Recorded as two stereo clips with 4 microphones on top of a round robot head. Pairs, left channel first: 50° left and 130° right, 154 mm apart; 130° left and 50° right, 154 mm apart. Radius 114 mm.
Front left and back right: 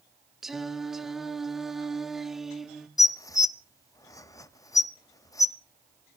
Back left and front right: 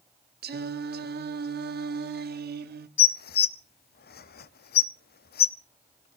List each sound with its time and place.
0.4 s singing: 40° right, 1.0 m
3.0 s dishes clattering: 120° left, 0.7 m